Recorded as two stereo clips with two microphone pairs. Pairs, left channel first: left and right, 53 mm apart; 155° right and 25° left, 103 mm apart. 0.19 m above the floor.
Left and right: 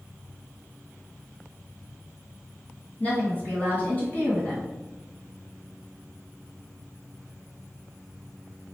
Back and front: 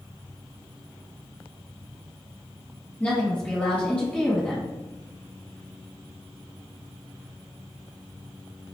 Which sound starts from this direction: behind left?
A woman speaking, at 3.0 s.